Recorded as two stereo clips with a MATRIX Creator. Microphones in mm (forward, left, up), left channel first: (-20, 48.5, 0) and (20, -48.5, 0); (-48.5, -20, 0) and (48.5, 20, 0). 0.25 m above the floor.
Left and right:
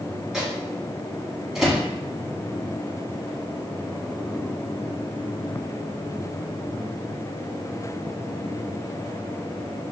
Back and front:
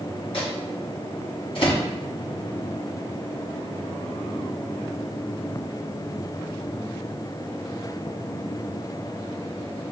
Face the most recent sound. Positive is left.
turn(degrees=-150)